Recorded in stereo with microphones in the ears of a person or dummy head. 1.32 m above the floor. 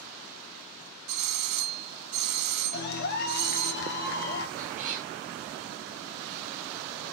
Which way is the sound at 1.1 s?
50° right (ahead or behind).